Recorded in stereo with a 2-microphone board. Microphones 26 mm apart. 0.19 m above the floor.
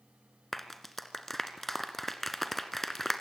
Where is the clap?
5° left (ahead or behind), 2 m.